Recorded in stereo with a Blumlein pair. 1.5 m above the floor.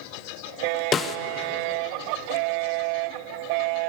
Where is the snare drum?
20° left, 1.1 m.